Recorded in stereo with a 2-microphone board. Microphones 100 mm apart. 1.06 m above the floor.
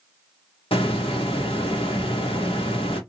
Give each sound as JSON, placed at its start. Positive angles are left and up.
{"t": 0.7, "sound": "a hiss", "side_deg": 65, "distance_m": 1.1}